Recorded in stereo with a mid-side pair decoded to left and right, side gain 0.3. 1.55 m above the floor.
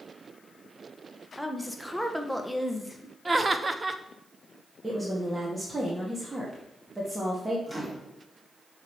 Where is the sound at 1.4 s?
10° left, 1.3 m.